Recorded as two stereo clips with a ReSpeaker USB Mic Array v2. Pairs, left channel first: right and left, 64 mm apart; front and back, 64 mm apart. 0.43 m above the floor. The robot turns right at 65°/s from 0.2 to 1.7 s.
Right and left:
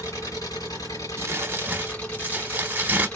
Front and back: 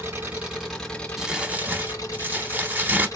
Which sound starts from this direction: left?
Crumpling, at 1.2 s.